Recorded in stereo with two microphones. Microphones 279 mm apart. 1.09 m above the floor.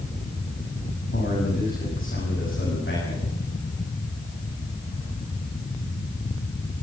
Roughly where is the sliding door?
No sliding door in this recording.